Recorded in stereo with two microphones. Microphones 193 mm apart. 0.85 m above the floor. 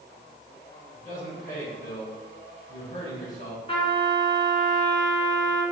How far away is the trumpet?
About 1.3 m.